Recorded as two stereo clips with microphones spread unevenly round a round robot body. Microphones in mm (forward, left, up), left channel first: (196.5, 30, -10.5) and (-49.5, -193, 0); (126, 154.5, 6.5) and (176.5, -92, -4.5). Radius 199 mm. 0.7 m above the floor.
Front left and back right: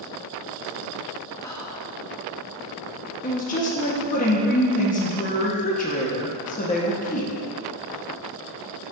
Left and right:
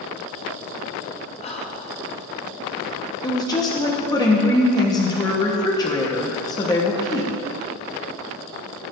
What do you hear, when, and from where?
1.4 s whispering: 100° left, 0.6 m
3.2 s a woman speaking: 40° left, 0.9 m